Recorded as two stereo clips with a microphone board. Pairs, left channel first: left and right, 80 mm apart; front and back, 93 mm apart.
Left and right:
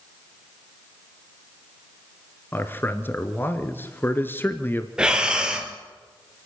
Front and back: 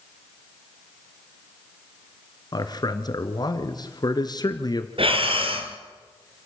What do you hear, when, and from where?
2.5 s a man speaking: 30° left, 1.7 m
5.0 s breathing: 170° right, 2.0 m